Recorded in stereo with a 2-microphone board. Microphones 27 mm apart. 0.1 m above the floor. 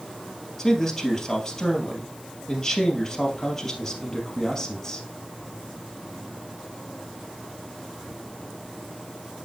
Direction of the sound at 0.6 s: 20° left (ahead or behind).